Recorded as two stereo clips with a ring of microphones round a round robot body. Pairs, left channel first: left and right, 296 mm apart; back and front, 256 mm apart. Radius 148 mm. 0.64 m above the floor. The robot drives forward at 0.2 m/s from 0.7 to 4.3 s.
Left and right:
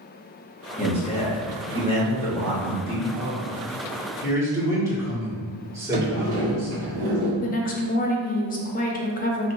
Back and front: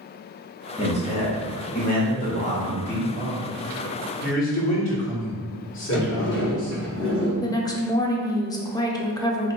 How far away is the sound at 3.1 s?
About 1.4 m.